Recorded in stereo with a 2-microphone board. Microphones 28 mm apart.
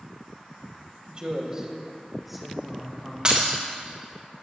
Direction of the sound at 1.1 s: 35° right (ahead or behind).